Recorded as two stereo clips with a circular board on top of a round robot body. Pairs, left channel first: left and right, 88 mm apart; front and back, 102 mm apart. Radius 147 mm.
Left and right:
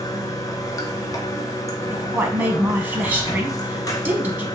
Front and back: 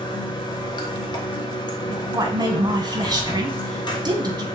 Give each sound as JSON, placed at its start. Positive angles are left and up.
{"t": 0.0, "sound": "running water", "azimuth_deg": 40, "distance_m": 0.8}
{"t": 1.9, "sound": "a woman speaking", "azimuth_deg": -150, "distance_m": 1.0}